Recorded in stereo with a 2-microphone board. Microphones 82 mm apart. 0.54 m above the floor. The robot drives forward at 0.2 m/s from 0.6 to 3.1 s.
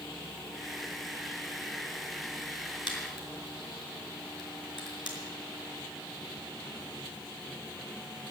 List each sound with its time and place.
2.9 s a crack: 65° left (ahead or behind), 5 m